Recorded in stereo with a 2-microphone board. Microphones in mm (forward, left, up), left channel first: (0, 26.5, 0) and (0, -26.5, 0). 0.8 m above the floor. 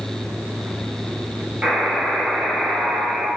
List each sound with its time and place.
1.6 s a buzzer: 20° right (ahead or behind), 1.1 m